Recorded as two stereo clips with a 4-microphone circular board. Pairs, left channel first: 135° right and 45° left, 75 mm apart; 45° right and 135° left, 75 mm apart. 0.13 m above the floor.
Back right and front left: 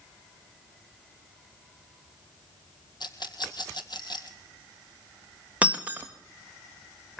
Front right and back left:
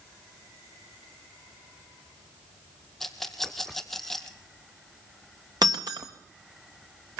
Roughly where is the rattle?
Behind right.